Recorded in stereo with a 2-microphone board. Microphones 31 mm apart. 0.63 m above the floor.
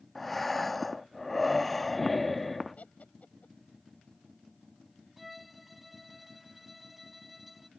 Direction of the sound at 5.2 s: 5° right (ahead or behind).